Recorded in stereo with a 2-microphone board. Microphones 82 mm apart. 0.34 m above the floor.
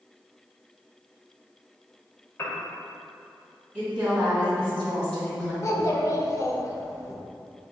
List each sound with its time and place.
2.4 s a piano: 30° left (ahead or behind), 0.7 m
3.7 s a woman speaking: 10° right (ahead or behind), 2.0 m
5.6 s a child speaking: 40° left (ahead or behind), 0.6 m